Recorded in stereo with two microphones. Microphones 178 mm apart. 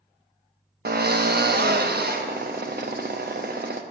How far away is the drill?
About 0.5 m.